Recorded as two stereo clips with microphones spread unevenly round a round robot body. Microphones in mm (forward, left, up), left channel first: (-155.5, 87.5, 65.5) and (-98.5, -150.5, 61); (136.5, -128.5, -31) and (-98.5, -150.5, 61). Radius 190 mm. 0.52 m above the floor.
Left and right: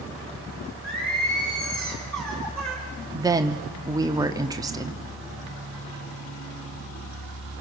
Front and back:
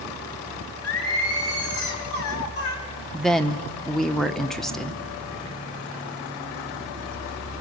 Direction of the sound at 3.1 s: 20° right.